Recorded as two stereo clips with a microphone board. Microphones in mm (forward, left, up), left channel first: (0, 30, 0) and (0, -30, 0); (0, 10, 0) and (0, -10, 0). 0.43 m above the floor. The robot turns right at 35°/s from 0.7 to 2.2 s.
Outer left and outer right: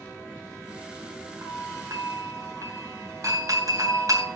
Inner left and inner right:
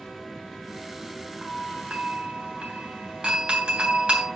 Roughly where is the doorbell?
Right.